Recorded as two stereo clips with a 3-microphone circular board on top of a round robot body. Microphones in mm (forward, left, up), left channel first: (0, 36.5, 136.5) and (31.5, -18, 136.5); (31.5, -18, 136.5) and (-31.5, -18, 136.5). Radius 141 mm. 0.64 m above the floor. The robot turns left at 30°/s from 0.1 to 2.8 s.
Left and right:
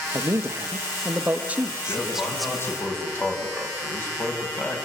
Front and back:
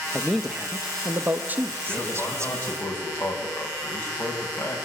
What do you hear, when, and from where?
0.1 s a man speaking: 80° right, 1.6 m; by 2.9 s 160° right, 1.6 m
1.9 s a man speaking: 90° left, 5.5 m; by 4.8 s 60° left, 5.5 m